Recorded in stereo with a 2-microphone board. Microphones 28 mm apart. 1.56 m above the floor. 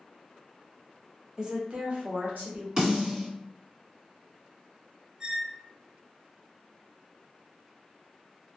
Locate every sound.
1.4 s a woman speaking: 25° right (ahead or behind), 0.7 m; by 2.7 s 80° right, 1.2 m
2.8 s a snare drum: 40° right (ahead or behind), 1.8 m
5.2 s a squeak: 25° right (ahead or behind), 0.5 m